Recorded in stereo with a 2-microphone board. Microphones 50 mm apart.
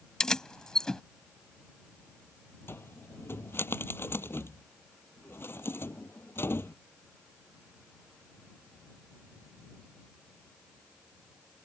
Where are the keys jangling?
15° left (ahead or behind).